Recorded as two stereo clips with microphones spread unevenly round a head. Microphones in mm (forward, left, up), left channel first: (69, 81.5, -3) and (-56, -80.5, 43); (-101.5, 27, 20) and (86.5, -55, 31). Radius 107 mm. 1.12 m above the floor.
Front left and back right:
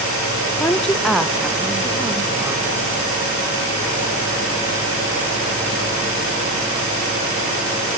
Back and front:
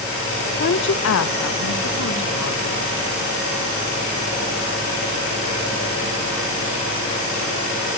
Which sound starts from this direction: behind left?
A woman speaking, at 0.6 s.